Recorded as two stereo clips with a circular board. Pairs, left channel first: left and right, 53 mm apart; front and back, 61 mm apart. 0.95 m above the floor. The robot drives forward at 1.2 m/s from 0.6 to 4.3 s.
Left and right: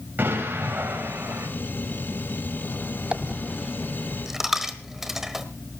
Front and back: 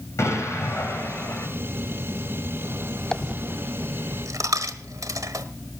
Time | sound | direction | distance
0.2 | an explosion | 35° right | 6.5 m
3.1 | a dropped coin | 60° right | 0.5 m